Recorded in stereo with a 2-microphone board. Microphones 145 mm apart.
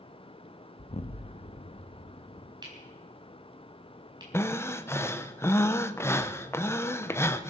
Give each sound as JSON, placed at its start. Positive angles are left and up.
{"t": 0.8, "sound": "an explosion", "side_deg": 50, "distance_m": 0.6}
{"t": 2.6, "sound": "cutlery clinking", "side_deg": -30, "distance_m": 4.5}
{"t": 4.3, "sound": "breathing", "side_deg": 15, "distance_m": 0.7}